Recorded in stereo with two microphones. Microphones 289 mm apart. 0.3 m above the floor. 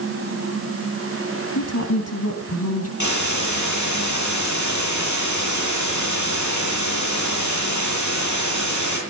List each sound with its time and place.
1.6 s a woman speaking: 60° left (ahead or behind), 2.5 m
3.0 s a hiss: 75° left (ahead or behind), 8 m